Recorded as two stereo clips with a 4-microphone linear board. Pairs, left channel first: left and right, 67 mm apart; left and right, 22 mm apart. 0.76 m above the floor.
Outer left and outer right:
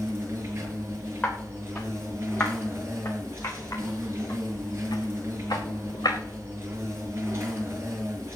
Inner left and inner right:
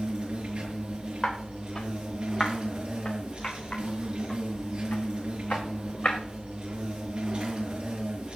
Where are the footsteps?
25° left (ahead or behind), 5 m; by 6.2 s 75° left (ahead or behind), 3.5 m.